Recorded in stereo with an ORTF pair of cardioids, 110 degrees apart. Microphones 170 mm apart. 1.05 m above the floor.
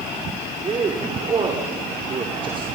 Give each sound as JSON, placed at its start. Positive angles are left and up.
{"t": 0.6, "sound": "a man speaking", "azimuth_deg": -30, "distance_m": 3.0}